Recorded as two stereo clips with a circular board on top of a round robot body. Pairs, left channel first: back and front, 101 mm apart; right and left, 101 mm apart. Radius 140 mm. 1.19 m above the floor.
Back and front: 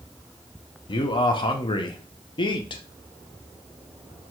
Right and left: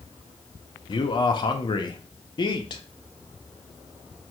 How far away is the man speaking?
About 0.5 m.